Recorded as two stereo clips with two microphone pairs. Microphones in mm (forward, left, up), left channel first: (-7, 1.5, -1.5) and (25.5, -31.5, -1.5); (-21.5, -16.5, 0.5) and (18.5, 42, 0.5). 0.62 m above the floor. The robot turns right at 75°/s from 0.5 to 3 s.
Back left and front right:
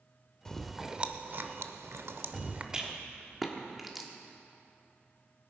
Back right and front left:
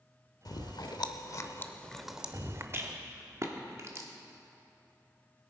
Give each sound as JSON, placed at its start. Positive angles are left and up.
{"t": 0.5, "sound": "chewing", "azimuth_deg": -150, "distance_m": 0.7}
{"t": 2.7, "sound": "a rattle", "azimuth_deg": 20, "distance_m": 1.4}